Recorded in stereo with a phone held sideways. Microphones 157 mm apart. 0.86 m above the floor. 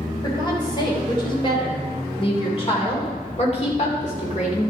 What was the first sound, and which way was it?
A woman speaking, 25° left (ahead or behind).